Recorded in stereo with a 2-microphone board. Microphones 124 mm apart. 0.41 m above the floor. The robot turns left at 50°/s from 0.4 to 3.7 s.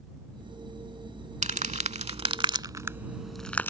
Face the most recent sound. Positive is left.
turn(degrees=15)  # may be behind; listen again after turning